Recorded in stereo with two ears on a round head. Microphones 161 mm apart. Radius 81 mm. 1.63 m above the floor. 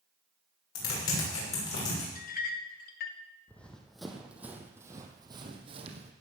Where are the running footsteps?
10° left (ahead or behind), 2.5 m; by 6.1 s 40° right (ahead or behind), 2.5 m.